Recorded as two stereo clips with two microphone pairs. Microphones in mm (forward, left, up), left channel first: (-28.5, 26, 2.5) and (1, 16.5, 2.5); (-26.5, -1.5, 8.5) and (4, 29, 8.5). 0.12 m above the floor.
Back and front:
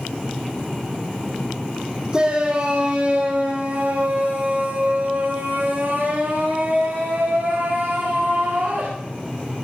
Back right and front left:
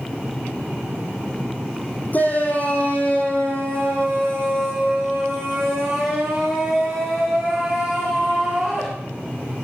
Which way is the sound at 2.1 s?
85° right.